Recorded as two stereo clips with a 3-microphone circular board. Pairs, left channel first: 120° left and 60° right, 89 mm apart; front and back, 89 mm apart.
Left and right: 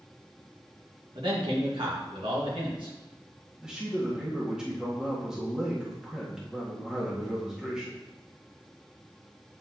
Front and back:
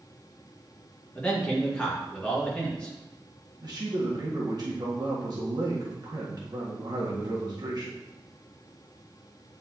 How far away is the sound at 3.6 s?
About 1.6 m.